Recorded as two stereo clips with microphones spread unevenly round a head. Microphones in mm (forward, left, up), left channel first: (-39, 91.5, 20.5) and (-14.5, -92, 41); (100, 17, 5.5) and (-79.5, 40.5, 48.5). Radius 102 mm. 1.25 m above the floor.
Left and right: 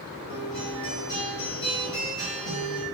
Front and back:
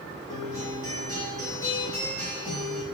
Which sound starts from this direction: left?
A guitar, at 0.3 s.